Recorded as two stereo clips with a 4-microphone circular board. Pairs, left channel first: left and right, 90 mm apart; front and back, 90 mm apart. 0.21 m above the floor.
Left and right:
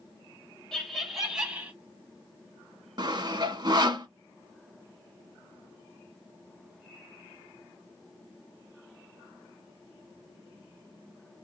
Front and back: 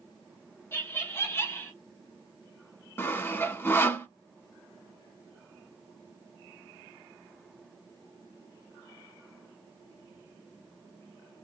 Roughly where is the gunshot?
I don't hear a gunshot.